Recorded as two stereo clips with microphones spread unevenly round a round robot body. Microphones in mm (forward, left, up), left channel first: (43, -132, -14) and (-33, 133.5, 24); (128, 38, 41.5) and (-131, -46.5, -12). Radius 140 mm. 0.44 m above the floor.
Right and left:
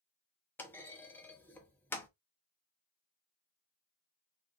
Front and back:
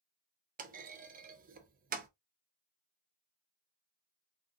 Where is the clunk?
145° right, 0.6 m.